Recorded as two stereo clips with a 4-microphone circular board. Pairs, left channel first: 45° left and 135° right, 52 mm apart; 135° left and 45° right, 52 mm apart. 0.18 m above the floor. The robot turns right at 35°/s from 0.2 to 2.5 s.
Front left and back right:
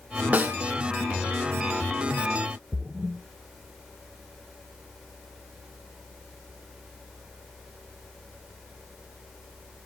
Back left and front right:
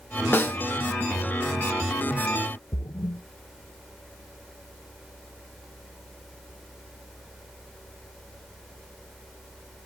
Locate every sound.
0.3 s a snare drum: 175° left, 1.0 m; by 0.6 s straight behind, 1.0 m
2.7 s a splash: 155° left, 0.5 m